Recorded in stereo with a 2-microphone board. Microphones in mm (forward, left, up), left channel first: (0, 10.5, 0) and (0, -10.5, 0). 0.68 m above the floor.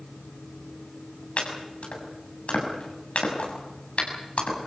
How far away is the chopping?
About 6 m.